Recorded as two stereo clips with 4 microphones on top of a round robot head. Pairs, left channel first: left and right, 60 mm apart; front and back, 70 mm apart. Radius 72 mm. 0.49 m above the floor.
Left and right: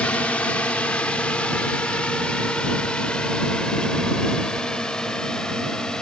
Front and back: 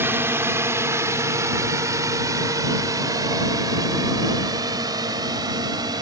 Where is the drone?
150° left; by 6.0 s 170° left.